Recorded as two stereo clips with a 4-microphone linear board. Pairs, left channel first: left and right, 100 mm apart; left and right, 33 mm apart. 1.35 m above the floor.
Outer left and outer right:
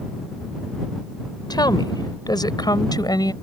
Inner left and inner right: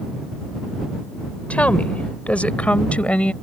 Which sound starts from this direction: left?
A woman speaking, at 1.5 s.